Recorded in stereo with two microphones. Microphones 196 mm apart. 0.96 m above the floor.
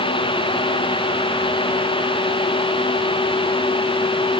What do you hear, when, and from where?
Only background noise.